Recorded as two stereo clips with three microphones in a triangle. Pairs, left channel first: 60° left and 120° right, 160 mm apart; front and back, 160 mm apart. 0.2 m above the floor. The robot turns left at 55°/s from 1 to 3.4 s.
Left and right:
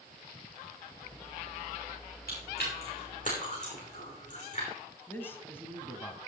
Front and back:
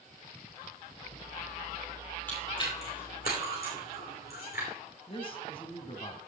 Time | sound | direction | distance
2.3 | chewing | 80° left | 5.5 m
5.1 | a man speaking | 5° right | 1.4 m